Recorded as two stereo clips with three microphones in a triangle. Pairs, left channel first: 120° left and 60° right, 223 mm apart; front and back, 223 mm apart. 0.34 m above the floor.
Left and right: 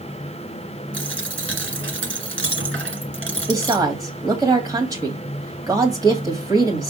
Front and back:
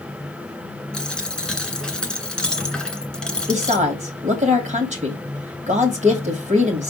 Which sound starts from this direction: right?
A dropped coin, at 0.9 s.